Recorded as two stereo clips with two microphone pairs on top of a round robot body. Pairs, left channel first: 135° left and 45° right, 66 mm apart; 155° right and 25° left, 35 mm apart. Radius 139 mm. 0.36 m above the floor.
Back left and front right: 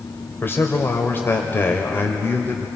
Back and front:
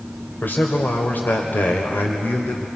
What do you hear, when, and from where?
0.4 s a man speaking: 175° right, 1.8 m